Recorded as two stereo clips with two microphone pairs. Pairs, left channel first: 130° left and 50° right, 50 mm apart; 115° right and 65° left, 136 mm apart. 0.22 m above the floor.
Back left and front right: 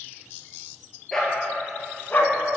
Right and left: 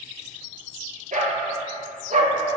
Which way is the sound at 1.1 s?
50° left.